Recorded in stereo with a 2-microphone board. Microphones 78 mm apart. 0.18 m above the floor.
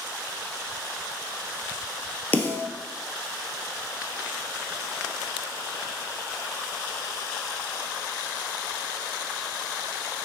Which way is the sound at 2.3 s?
25° left (ahead or behind).